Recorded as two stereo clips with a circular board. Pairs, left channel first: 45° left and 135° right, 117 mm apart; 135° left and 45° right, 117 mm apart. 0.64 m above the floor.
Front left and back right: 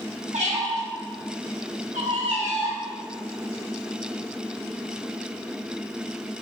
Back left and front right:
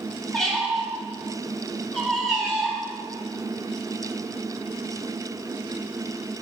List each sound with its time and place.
0.3 s a squeak: 140° right, 0.7 m